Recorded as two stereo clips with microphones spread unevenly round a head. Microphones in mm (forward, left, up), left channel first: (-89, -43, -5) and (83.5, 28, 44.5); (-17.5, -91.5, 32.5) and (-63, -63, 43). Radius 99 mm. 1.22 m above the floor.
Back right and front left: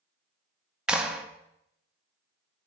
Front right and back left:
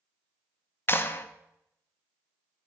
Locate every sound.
0.9 s a clap: 70° right, 0.6 m